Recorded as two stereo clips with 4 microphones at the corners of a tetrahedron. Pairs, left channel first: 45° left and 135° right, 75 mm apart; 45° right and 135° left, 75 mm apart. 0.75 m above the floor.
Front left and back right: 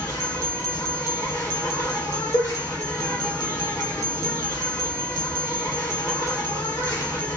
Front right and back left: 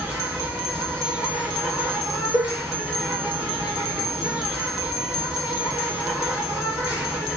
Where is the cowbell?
70° left, 1.3 m.